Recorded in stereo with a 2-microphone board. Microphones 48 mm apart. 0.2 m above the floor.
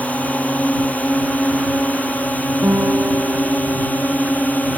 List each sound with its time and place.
0.0 s a drone: 35° left (ahead or behind); by 4.8 s 40° left (ahead or behind)
2.6 s a guitar: 65° right (ahead or behind)